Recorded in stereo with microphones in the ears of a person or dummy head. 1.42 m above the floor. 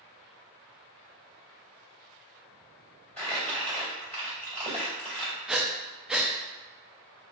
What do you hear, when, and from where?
3.2 s crumpling: 5° left (ahead or behind), 2 m
5.5 s breathing: 5° right (ahead or behind), 0.5 m